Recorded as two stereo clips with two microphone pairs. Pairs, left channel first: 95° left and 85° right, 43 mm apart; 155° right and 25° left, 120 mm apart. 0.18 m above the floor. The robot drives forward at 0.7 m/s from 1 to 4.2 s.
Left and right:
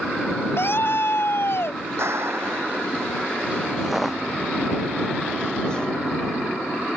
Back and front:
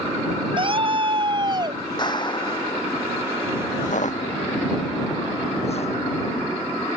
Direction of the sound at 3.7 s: 160° right.